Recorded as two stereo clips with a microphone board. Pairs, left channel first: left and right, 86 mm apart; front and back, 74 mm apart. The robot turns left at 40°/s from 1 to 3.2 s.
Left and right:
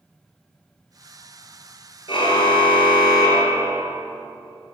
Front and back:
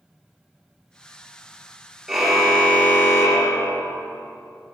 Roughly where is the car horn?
Left.